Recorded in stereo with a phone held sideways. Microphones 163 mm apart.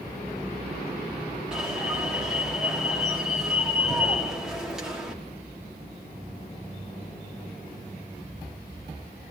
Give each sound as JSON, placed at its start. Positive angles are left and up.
{"t": 1.5, "sound": "an alarm", "side_deg": -5, "distance_m": 5.0}